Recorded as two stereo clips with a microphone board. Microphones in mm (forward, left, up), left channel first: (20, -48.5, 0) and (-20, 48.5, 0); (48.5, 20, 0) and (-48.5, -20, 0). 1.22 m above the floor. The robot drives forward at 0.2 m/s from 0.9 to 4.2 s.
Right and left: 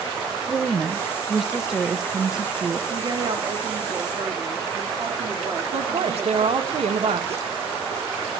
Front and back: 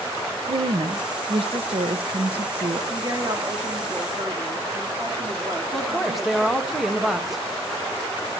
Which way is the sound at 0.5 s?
160° right.